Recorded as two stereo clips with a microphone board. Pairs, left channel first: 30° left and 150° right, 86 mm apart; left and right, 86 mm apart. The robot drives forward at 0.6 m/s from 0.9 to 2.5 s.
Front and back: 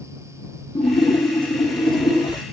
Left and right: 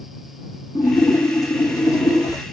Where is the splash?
40° left, 4 m; by 2.4 s 55° left, 3.5 m.